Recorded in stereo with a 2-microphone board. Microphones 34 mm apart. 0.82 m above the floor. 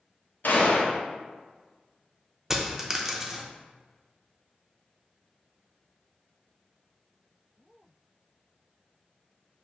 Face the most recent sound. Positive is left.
turn(degrees=-10)  # may be behind; listen again after turning